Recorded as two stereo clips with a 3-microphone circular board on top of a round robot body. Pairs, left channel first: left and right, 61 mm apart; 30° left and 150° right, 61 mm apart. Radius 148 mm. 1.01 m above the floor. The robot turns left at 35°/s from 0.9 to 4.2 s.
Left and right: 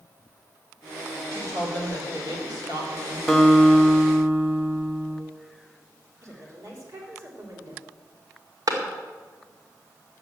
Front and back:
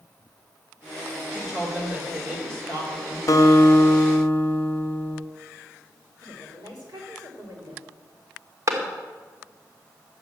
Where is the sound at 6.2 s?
135° right, 4 m.